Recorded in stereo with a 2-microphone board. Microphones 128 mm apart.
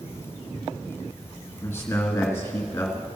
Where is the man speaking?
20° left (ahead or behind), 1.6 m.